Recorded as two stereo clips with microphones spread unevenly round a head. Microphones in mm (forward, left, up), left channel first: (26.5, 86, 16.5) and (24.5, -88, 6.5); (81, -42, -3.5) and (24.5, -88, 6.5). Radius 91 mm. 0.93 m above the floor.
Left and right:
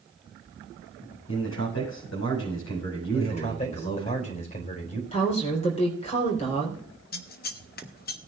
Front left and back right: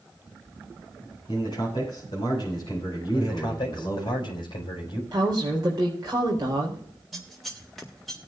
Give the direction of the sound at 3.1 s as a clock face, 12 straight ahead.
11 o'clock.